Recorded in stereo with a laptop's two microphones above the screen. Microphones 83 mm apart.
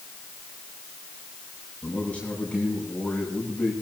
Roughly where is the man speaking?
Centre.